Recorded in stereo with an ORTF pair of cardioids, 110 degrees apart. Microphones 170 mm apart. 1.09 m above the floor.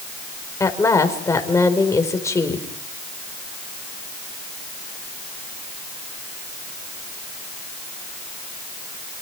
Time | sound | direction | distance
0.6 | a woman speaking | 15° left | 4.5 m